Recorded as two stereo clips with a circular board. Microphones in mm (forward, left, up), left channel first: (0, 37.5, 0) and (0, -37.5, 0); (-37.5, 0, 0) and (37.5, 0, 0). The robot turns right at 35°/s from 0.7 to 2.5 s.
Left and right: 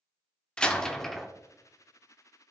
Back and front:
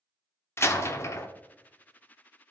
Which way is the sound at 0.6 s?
160° left.